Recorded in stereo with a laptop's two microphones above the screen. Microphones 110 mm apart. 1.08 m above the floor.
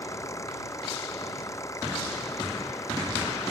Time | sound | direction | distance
0.0 | an engine running | 25° left (ahead or behind) | ?